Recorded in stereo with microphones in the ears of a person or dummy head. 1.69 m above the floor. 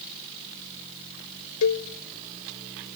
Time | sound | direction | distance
1.6 | a cowbell | 80° left | 1.2 m